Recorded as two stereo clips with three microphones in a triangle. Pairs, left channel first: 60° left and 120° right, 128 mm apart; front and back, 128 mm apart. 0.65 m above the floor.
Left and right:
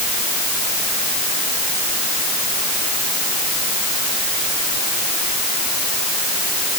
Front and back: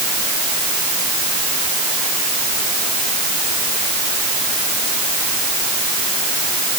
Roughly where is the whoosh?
No whoosh in this recording.